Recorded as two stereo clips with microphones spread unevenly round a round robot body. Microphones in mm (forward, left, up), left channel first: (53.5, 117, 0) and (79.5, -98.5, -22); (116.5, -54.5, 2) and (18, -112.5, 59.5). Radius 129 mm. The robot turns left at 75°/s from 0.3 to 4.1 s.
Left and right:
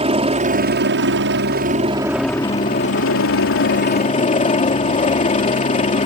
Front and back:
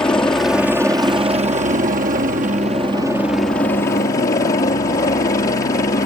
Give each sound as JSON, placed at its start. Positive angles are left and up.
{"t": 0.0, "sound": "a helicopter", "azimuth_deg": -30}